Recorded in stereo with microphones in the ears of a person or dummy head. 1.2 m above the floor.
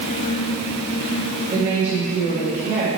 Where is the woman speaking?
55° right (ahead or behind), 1.6 m.